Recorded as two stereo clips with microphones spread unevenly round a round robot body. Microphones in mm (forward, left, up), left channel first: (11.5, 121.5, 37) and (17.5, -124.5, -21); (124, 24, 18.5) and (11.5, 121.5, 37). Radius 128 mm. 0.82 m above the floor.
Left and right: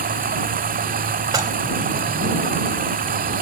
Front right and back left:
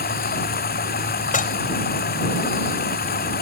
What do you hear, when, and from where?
0.0 s running water: 30° right
1.3 s dishes clattering: 15° right